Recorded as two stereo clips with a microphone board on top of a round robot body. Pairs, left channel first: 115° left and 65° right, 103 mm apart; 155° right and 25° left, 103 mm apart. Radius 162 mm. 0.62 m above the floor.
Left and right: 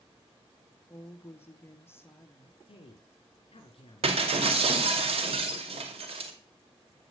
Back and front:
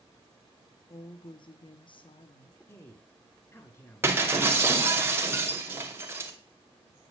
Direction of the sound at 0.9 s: 175° left.